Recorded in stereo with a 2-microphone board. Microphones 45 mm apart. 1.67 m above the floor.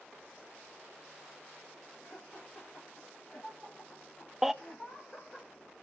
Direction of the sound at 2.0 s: 40° left (ahead or behind).